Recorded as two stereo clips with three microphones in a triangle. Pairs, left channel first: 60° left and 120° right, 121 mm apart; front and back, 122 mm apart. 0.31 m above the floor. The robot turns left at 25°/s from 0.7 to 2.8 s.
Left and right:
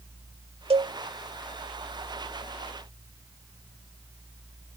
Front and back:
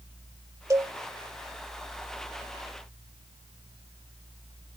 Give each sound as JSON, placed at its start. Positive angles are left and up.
{"t": 0.7, "sound": "a cowbell", "azimuth_deg": -125}